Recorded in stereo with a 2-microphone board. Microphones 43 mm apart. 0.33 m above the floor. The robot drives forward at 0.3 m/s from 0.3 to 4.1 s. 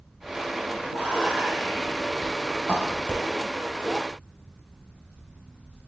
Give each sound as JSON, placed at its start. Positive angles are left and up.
{"t": 0.9, "sound": "whispering", "side_deg": -30, "distance_m": 2.0}